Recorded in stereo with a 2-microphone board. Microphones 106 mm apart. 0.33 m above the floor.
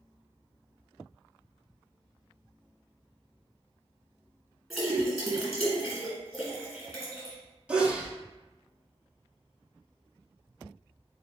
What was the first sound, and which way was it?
A splash, centre (ahead or behind).